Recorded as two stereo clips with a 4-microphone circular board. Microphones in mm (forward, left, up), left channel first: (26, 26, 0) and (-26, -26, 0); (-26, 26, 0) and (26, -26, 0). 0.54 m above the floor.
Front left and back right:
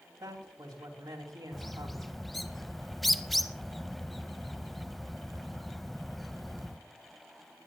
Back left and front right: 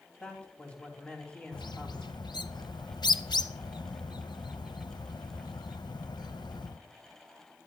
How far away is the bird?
About 0.6 m.